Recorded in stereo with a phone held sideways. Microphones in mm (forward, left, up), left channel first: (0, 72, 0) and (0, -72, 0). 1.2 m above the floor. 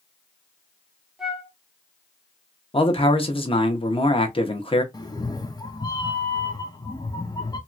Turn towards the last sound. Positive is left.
turn(degrees=25)  # may be behind; listen again after turning